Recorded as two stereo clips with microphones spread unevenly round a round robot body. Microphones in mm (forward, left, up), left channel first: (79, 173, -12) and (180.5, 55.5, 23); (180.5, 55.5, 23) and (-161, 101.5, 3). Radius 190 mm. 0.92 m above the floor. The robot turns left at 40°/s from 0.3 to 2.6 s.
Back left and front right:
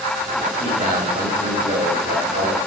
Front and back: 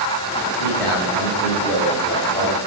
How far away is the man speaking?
About 5.5 m.